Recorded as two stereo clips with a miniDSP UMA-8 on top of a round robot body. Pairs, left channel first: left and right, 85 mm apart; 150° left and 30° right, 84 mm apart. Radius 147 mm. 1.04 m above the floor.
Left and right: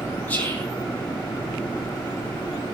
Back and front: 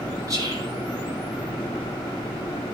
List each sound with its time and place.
0.3 s whispering: 20° left, 9.5 m